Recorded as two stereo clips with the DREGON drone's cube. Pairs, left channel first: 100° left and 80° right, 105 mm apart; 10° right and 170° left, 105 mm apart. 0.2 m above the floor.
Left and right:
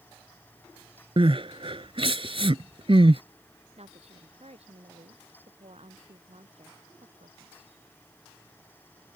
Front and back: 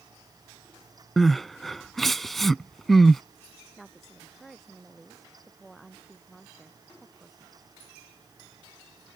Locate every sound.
1.2 s crying: 100° right
3.8 s a woman speaking: 100° right